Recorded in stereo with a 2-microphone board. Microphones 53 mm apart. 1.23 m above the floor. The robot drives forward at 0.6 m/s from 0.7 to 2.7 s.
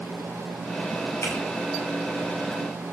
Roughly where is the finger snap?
Left.